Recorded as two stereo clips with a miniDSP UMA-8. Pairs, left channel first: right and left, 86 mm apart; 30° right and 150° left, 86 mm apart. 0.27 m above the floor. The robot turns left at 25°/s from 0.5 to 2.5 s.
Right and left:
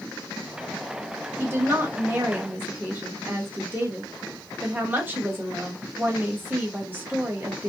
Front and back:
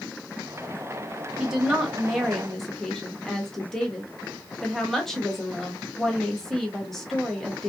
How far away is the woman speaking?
About 1.0 m.